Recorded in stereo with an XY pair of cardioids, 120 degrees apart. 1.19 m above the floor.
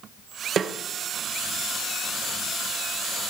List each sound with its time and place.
0.6 s a snare drum: 45° right, 0.7 m